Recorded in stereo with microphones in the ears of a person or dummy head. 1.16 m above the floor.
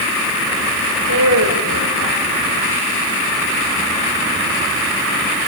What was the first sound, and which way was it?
A woman speaking, 70° right (ahead or behind).